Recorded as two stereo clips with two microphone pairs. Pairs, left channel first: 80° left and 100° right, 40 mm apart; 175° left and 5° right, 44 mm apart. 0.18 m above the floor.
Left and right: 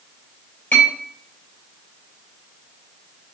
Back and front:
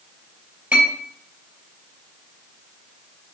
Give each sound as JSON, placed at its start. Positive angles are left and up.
{"t": 0.7, "sound": "a clink", "azimuth_deg": 50, "distance_m": 2.5}